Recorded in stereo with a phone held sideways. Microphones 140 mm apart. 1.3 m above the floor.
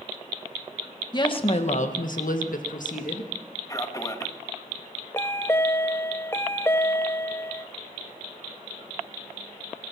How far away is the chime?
About 0.5 m.